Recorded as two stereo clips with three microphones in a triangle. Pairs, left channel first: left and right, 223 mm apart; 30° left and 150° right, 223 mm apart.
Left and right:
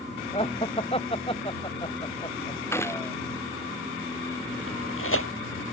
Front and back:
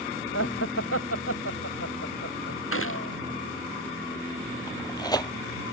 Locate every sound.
0.3 s laughter: 25° left; by 2.6 s 20° left
2.7 s a gunshot: 10° left
4.7 s tearing paper: 100° left